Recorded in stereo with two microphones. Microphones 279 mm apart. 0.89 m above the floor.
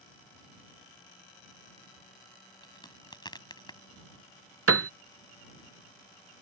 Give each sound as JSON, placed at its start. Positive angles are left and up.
{"t": 2.6, "sound": "a crack", "side_deg": 15}
{"t": 4.7, "sound": "a piano", "side_deg": -55}